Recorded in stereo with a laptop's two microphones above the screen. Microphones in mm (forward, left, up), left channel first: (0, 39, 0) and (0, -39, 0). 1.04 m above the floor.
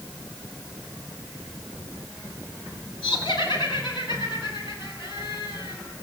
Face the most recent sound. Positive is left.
turn(degrees=75)  # may be behind; listen again after turning